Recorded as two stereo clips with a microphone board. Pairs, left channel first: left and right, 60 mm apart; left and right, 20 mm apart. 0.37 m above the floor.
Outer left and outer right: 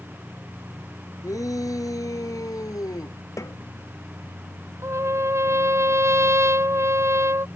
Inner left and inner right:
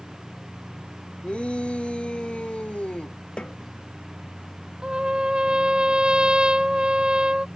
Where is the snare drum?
55° left (ahead or behind).